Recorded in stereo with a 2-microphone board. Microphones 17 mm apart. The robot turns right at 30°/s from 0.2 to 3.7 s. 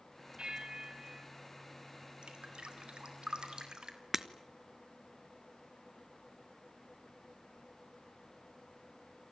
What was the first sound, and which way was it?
A bell, 65° right (ahead or behind).